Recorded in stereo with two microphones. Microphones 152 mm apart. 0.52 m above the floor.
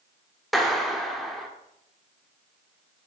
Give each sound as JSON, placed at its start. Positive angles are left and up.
{"t": 0.5, "sound": "a clap", "side_deg": 0, "distance_m": 1.2}